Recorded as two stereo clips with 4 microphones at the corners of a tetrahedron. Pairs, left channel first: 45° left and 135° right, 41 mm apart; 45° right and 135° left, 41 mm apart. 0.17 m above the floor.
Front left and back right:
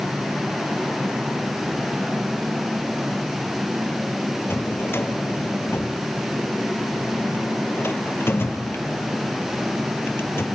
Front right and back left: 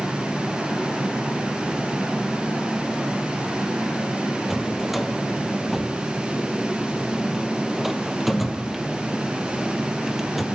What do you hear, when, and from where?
4.5 s a drawer: 45° left, 1.7 m